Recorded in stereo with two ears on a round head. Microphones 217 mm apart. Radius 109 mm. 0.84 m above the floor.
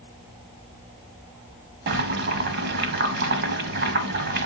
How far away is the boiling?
About 1.0 m.